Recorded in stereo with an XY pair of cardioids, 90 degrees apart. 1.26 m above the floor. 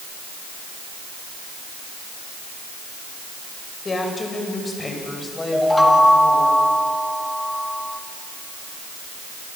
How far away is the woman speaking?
About 6.5 m.